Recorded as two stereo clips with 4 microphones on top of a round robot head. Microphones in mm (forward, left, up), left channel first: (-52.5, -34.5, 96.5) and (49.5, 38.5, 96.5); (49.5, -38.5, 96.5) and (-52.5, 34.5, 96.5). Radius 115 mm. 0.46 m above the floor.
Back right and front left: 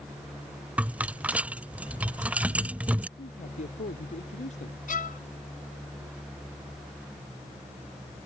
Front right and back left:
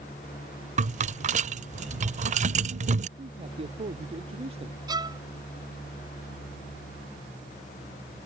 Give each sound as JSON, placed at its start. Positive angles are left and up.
{"t": 0.8, "sound": "a rattle", "azimuth_deg": 115}
{"t": 3.2, "sound": "a man speaking", "azimuth_deg": -175}
{"t": 4.9, "sound": "a violin", "azimuth_deg": -155}